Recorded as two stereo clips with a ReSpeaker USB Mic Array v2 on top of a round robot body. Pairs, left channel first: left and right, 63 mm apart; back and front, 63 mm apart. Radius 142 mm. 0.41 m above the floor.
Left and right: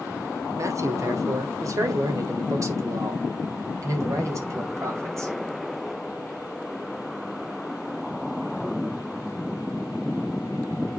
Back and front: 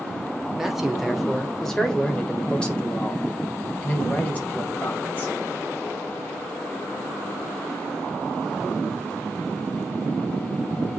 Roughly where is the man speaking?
Right.